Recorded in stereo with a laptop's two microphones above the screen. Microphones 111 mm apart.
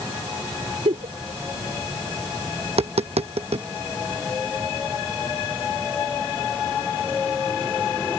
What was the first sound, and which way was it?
A giggle, 75° right (ahead or behind).